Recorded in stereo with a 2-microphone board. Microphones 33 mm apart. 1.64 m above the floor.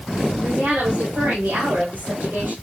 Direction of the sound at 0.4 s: 70° right (ahead or behind).